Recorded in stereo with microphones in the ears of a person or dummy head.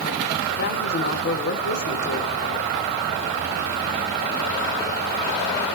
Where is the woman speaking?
55° left (ahead or behind), 3 m.